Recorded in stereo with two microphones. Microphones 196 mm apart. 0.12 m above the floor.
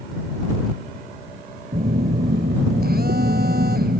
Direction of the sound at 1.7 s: 60° right (ahead or behind).